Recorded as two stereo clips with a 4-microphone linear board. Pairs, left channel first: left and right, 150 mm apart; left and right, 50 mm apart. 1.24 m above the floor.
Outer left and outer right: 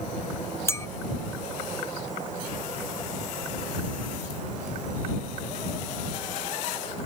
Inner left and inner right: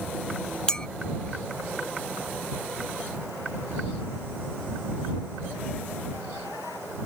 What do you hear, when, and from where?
0.7 s a clink: 20° left (ahead or behind)